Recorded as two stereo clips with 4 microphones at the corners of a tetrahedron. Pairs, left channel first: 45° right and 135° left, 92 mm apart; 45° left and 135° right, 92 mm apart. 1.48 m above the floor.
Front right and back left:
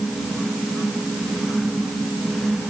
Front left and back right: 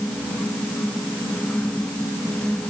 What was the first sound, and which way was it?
Only background noise.